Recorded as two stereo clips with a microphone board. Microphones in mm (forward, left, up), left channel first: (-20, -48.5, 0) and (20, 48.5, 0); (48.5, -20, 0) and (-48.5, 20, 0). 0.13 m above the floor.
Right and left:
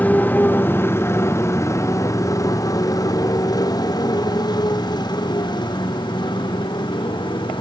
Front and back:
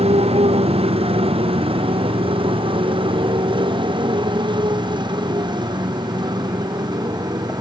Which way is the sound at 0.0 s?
170° left.